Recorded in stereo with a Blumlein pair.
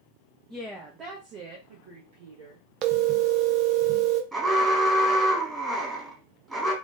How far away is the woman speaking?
About 0.9 m.